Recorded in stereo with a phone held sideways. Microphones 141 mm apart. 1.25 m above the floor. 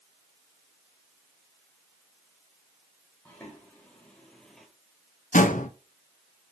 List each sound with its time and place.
3.2 s footsteps: 15° left (ahead or behind), 3 m; by 4.7 s centre (ahead or behind), 1.5 m
5.3 s a door slam: 70° left (ahead or behind), 0.9 m